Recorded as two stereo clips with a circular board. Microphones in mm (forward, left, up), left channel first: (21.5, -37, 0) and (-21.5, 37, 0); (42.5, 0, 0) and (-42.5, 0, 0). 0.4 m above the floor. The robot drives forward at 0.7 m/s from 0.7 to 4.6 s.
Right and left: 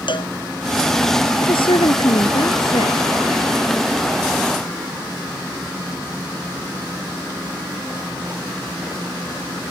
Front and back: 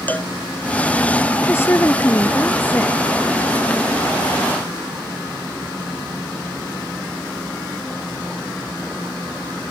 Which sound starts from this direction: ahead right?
A woman speaking, at 1.4 s.